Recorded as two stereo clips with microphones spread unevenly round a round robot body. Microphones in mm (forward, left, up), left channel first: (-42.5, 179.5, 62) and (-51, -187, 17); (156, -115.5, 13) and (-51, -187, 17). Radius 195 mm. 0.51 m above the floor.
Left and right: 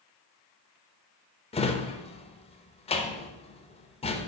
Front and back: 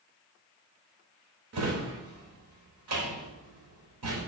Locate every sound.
1.5 s a drawer: 165° left, 0.5 m